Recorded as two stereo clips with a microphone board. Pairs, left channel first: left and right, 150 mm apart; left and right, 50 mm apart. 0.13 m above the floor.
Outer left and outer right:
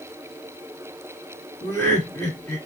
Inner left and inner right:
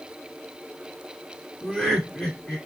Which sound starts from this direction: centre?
Laughter, at 1.6 s.